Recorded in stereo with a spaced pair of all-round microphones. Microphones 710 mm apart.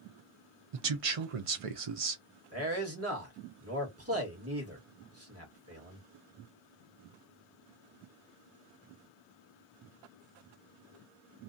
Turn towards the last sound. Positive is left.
turn(degrees=-20)  # may be behind; listen again after turning